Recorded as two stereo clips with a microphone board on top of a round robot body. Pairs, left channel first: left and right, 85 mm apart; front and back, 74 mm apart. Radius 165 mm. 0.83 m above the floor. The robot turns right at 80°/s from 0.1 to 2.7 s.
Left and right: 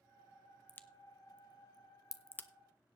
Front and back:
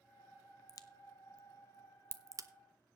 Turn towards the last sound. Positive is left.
turn(degrees=180)